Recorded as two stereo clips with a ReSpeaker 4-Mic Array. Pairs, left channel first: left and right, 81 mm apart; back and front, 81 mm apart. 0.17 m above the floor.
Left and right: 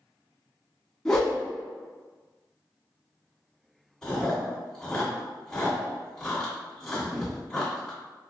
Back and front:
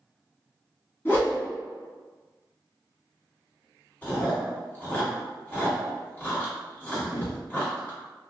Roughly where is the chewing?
Behind.